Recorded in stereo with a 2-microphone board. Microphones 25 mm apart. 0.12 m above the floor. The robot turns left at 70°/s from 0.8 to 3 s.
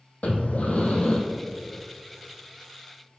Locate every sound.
0.2 s breathing: 70° left (ahead or behind), 1.3 m; by 1.2 s 45° left (ahead or behind), 1.3 m